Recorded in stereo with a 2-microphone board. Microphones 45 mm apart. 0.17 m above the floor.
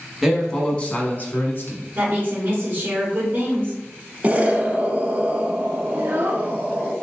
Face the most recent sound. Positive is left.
turn(degrees=-50)  # may be behind; listen again after turning